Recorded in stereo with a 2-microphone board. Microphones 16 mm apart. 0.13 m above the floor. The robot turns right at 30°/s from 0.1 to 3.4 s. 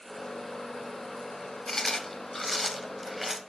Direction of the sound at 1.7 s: 30° left (ahead or behind).